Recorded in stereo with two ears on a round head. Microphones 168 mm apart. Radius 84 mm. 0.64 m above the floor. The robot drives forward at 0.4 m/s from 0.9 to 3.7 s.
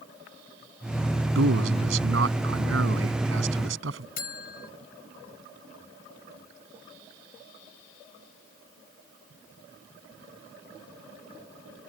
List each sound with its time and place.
1.4 s a man speaking: 80° right; by 4.1 s 75° right (ahead or behind)
4.2 s a buzzer: 55° left (ahead or behind)